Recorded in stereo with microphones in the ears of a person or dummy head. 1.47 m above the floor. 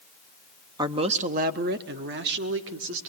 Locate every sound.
0.8 s a man speaking: 20° right (ahead or behind), 0.9 m; by 3.1 s 70° right (ahead or behind), 2.5 m